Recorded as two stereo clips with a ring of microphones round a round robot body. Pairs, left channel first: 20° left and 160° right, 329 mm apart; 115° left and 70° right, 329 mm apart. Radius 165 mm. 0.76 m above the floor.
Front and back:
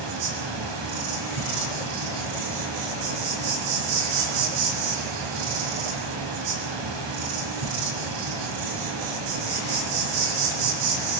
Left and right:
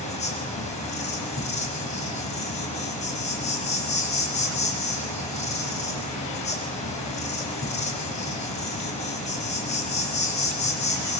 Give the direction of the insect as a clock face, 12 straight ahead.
6 o'clock.